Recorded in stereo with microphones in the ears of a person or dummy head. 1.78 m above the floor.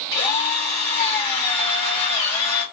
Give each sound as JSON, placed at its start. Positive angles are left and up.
{"t": 0.1, "sound": "a drill", "side_deg": 25, "distance_m": 1.7}